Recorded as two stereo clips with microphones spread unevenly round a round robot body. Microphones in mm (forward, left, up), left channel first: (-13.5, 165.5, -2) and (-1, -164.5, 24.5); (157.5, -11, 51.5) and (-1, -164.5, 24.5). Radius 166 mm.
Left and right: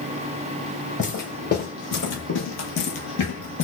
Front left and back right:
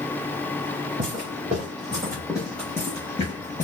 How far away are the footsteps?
About 1.3 m.